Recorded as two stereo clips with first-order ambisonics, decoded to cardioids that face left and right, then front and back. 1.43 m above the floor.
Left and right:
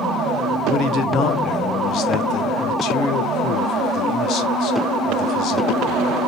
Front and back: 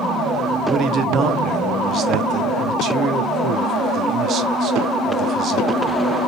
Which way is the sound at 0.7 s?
130° left.